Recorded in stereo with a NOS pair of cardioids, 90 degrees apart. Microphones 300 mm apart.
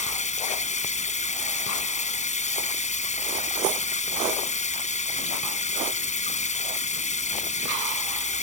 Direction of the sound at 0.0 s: 25° left.